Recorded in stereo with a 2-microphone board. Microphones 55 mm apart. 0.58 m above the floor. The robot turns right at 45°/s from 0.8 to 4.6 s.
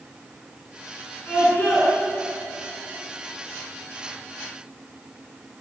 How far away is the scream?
About 8 m.